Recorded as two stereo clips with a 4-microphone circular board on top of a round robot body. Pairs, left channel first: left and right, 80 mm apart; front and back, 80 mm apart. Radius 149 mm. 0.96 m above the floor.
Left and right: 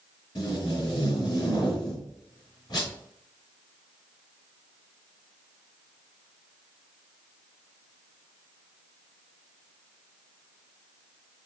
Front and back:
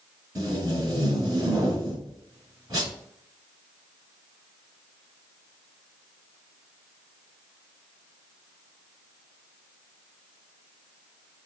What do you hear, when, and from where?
0.3 s tape being pulled: 130° left, 2.5 m